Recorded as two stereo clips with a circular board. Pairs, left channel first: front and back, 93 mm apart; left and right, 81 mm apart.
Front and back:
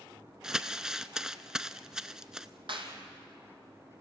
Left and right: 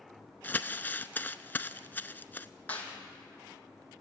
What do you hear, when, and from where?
0.4 s crumpling: 105° left, 0.7 m
2.7 s a clap: 160° left, 3 m